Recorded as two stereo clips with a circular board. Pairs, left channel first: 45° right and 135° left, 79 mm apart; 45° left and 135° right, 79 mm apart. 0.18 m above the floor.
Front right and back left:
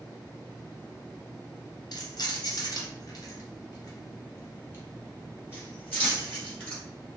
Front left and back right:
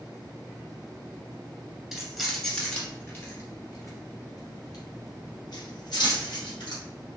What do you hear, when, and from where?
1.9 s keys jangling: 45° right, 1.4 m; by 6.8 s 25° left, 3 m